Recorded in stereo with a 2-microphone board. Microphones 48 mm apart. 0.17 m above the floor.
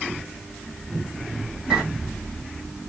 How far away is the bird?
About 1.4 m.